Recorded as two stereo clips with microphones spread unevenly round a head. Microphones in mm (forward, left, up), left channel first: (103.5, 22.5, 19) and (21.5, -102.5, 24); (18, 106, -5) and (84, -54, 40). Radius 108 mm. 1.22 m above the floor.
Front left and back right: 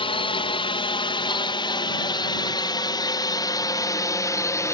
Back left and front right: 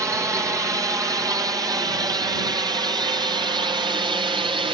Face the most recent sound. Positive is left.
turn(degrees=0)